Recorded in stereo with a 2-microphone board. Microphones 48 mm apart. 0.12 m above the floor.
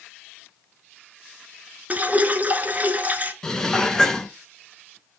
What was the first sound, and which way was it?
Dripping, 35° right (ahead or behind).